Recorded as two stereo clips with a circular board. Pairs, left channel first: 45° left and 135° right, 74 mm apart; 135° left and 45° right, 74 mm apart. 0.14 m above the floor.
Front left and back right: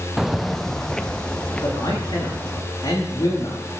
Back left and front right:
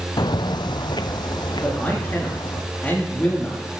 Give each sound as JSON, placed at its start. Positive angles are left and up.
{"t": 0.2, "sound": "footsteps", "azimuth_deg": 140, "distance_m": 0.5}
{"t": 1.6, "sound": "a man speaking", "azimuth_deg": 70, "distance_m": 8.5}